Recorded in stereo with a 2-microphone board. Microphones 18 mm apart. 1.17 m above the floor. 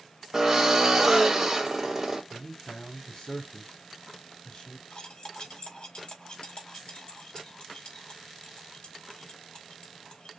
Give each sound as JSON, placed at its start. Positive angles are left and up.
{"t": 0.3, "sound": "a drill", "side_deg": -15, "distance_m": 2.0}
{"t": 2.3, "sound": "a man speaking", "side_deg": 45, "distance_m": 2.5}
{"t": 4.9, "sound": "cutlery clinking", "side_deg": 65, "distance_m": 1.8}